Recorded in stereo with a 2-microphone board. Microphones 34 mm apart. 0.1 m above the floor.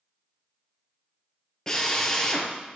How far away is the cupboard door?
No cupboard door in this recording.